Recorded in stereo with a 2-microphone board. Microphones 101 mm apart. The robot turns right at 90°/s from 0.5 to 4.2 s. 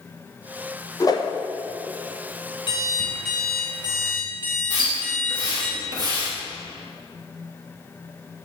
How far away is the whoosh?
About 0.9 m.